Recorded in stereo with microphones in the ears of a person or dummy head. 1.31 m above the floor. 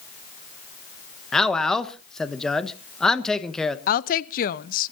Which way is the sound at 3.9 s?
45° left (ahead or behind).